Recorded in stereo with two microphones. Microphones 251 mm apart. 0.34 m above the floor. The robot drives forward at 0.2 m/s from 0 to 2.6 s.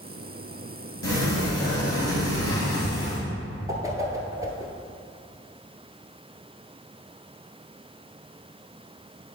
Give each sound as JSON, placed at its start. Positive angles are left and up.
{"t": 1.0, "sound": "a sliding door", "side_deg": 80, "distance_m": 1.9}
{"t": 3.7, "sound": "a whoosh", "side_deg": -15, "distance_m": 1.1}